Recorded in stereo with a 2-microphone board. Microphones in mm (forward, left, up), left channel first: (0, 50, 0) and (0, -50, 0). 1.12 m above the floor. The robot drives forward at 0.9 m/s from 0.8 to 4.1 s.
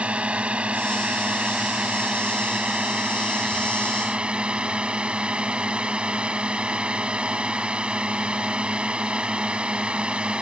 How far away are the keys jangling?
I don't hear keys jangling.